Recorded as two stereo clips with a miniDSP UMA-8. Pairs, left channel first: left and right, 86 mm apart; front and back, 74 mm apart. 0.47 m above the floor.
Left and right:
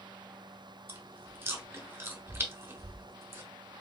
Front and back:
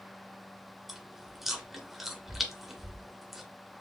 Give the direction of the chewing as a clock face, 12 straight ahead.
3 o'clock.